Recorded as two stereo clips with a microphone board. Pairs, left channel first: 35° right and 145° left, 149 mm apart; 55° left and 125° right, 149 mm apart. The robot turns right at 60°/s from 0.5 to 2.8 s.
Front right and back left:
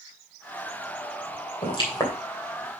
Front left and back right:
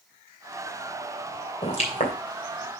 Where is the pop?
5° left, 3 m; by 2.1 s 35° left, 3 m.